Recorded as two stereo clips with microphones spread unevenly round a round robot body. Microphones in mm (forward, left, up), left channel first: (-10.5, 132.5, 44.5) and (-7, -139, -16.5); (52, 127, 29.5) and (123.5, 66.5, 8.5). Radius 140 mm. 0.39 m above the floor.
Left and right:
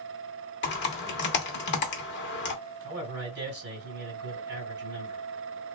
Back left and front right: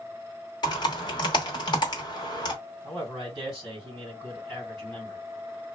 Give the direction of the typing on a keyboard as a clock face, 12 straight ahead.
8 o'clock.